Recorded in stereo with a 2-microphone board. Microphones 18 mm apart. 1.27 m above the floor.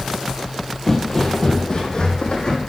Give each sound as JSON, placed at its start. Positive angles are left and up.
{"t": 0.9, "sound": "footsteps", "side_deg": 30, "distance_m": 1.4}